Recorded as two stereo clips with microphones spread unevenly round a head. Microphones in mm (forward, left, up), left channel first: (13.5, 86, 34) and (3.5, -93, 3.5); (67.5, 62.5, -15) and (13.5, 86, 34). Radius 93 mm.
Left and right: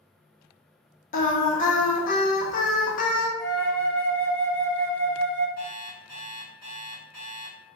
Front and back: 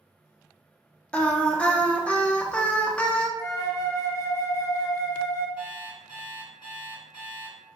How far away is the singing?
About 0.6 m.